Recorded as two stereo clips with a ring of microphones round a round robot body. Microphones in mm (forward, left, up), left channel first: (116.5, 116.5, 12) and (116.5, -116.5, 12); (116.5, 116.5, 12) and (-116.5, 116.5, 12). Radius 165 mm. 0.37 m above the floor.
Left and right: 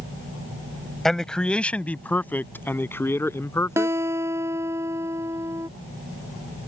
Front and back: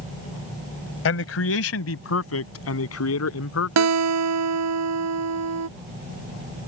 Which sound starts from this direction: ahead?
A man speaking, at 1.1 s.